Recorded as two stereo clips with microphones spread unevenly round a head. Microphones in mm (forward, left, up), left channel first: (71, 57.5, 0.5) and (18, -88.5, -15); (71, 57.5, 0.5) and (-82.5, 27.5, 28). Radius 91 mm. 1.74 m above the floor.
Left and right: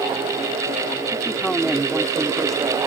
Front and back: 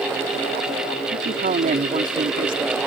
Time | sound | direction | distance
1.1 | a man speaking | 155° left | ?